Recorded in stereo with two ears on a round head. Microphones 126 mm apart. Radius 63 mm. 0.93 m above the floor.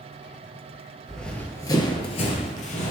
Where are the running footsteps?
Centre (ahead or behind), 1.3 m; by 2.9 s 55° left (ahead or behind), 1.6 m.